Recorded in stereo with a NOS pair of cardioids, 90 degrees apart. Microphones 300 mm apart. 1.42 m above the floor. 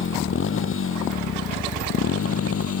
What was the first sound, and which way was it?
A motorcycle, 40° left.